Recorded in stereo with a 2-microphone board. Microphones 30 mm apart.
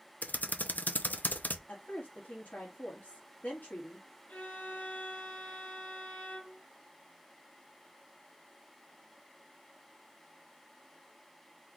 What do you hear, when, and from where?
0.2 s typing on a keyboard: 65° left (ahead or behind), 0.7 m
1.7 s a woman speaking: 55° left (ahead or behind), 1.8 m
4.3 s a violin: 60° left (ahead or behind), 1.3 m